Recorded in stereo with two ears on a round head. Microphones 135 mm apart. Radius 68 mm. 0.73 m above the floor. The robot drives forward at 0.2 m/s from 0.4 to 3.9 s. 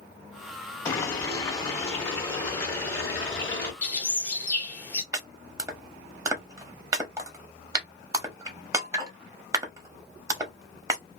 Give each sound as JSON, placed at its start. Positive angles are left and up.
{"t": 0.8, "sound": "boiling", "side_deg": 20, "distance_m": 1.1}
{"t": 3.8, "sound": "a bird", "side_deg": 15, "distance_m": 1.0}
{"t": 5.1, "sound": "chopping", "side_deg": -20, "distance_m": 0.7}